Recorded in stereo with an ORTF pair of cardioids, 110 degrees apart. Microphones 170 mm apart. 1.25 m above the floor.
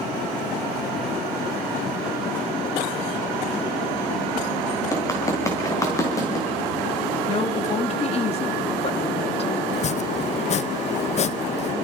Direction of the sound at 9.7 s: 40° left.